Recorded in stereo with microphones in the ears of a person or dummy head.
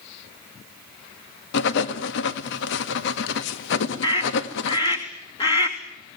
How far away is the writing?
About 1.7 m.